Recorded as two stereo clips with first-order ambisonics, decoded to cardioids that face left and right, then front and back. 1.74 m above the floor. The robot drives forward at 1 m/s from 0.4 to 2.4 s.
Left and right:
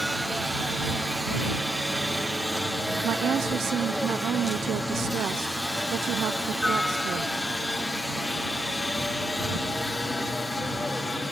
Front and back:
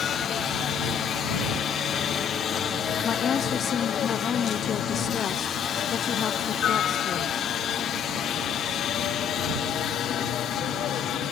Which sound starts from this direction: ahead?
A helicopter, at 0.0 s.